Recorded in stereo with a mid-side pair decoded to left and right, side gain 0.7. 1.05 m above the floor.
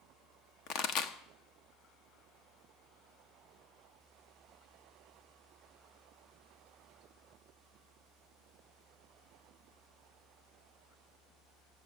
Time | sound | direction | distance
0.7 | a pop | 65° left | 1.1 m